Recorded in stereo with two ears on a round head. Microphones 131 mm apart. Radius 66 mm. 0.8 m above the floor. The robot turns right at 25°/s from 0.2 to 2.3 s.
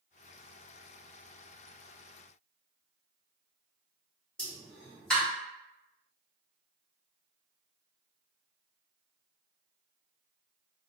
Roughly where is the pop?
Centre.